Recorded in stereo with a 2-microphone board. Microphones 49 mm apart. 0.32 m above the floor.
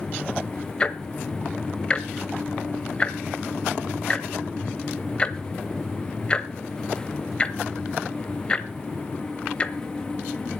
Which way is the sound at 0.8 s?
25° left (ahead or behind).